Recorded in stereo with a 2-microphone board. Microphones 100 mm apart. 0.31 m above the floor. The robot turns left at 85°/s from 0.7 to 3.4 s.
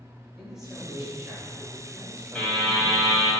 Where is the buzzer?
165° left, 1.5 m; by 3.3 s 85° left, 1.5 m.